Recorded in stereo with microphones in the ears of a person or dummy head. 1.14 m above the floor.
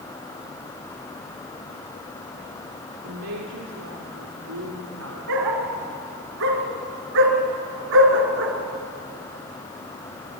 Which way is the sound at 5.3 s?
65° right (ahead or behind).